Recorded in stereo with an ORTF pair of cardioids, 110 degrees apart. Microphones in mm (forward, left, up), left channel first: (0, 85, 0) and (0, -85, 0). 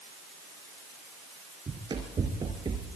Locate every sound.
1.7 s running footsteps: 30° right, 4 m